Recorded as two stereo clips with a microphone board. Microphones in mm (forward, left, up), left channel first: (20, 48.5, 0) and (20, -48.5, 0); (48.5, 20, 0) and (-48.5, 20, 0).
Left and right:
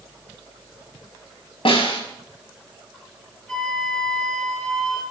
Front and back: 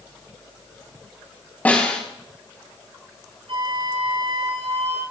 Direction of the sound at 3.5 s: 170° left.